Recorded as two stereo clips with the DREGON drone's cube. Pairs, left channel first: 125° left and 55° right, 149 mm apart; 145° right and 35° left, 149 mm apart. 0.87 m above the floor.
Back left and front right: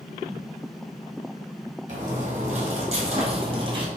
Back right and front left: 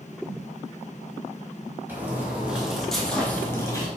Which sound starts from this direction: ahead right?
Footsteps, at 1.9 s.